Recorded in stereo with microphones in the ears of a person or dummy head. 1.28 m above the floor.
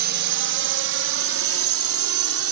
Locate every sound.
0.0 s a drone: 55° right (ahead or behind); by 2.5 s 75° right (ahead or behind)